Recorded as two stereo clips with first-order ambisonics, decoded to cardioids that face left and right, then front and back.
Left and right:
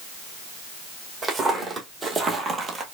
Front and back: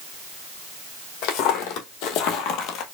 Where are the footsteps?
15° right, 1.9 m; by 2.8 s 25° right, 1.1 m.